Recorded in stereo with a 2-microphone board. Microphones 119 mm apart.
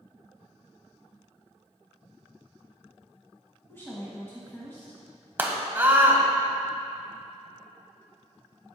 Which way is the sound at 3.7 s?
20° left (ahead or behind).